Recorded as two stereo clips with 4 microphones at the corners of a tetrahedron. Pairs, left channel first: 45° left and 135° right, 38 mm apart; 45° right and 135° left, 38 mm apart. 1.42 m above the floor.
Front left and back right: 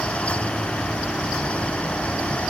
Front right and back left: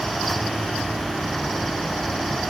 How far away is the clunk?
I don't hear a clunk.